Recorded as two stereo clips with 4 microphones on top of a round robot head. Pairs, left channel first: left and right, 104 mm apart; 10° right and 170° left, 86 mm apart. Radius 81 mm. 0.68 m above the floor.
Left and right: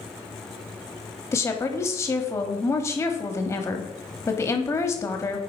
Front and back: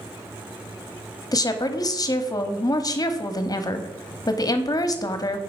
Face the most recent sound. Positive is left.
turn(degrees=30)